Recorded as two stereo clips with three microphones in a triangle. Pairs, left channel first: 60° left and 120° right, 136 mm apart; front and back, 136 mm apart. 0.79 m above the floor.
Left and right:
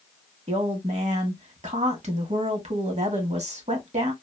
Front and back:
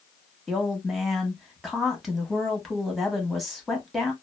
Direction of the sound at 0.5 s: 90° right.